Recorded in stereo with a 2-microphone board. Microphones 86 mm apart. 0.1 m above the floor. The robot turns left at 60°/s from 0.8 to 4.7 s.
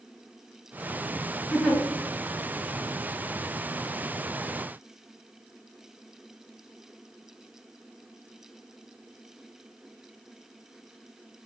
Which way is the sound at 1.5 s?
Centre (ahead or behind).